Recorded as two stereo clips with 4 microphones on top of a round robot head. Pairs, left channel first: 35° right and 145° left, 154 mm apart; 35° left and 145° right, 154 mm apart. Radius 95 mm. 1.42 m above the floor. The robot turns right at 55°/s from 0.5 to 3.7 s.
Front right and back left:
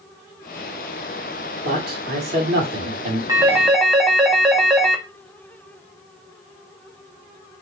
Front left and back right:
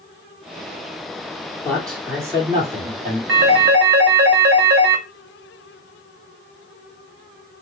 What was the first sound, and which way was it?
A man speaking, 110° left.